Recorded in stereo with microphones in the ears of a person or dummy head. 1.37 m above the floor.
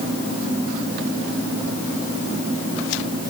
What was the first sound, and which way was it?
Only background noise.